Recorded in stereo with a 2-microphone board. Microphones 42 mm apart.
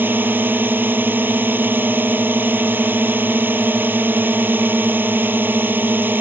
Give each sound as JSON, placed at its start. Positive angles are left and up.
{"t": 0.0, "sound": "a drone", "side_deg": -50}